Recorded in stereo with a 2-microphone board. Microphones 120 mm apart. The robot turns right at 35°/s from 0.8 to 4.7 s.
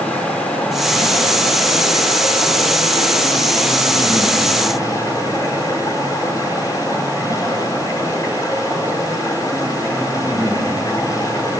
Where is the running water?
15° left, 5 m; by 11.6 s 150° left, 5 m.